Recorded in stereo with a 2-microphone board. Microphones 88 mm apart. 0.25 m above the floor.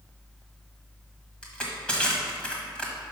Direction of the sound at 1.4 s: 10° left (ahead or behind).